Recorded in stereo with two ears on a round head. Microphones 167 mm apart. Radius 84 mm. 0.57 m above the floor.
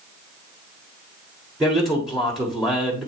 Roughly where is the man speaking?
Centre.